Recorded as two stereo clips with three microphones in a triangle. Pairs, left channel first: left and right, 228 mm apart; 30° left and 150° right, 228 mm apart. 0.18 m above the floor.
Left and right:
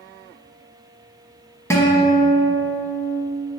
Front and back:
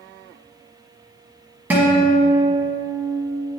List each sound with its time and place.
1.7 s a guitar: 145° left, 1.3 m